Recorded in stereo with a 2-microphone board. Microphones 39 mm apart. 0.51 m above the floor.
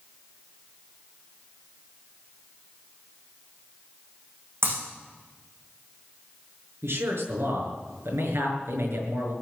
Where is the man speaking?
80° right, 6 m.